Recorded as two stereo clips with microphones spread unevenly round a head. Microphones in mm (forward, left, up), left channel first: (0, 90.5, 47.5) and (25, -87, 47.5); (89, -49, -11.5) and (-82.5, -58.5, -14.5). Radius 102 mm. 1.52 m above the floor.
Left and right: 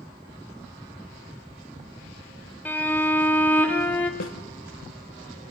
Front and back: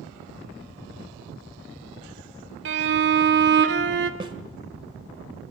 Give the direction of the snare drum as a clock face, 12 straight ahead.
8 o'clock.